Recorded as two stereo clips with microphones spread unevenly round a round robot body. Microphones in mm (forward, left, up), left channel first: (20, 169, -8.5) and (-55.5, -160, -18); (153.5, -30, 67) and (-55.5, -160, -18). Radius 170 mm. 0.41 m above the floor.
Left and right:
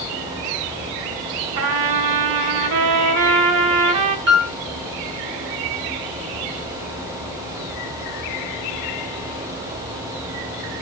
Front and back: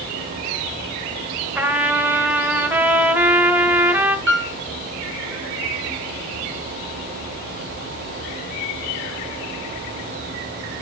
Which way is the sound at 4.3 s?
155° right.